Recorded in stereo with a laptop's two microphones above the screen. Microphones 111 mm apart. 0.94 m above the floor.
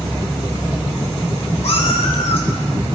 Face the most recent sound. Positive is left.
turn(degrees=65)  # may be behind; listen again after turning